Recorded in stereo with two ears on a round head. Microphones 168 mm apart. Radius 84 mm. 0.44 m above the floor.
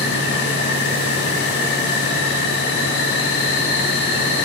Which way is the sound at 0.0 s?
65° left (ahead or behind).